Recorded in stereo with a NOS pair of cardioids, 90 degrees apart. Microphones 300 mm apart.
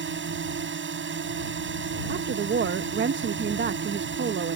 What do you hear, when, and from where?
0.0 s a drone: 40° right
2.1 s a woman speaking: 40° right